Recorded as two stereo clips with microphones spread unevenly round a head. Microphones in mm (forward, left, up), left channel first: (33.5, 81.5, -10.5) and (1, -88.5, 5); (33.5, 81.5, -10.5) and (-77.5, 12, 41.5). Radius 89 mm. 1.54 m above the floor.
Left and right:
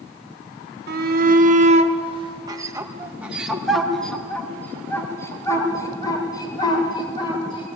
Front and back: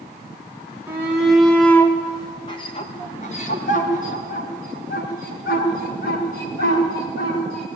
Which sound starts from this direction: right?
A shout, at 0.9 s.